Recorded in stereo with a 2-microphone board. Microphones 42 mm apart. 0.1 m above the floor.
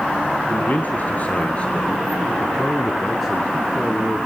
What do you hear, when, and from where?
0.5 s a man speaking: 50° left (ahead or behind), 2.5 m; by 4.3 s 20° right (ahead or behind), 2.5 m